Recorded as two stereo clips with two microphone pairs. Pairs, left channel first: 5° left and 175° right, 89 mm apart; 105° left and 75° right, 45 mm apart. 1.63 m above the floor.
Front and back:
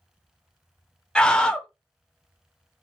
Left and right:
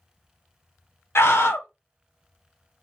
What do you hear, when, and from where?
1.1 s a scream: 85° left, 0.7 m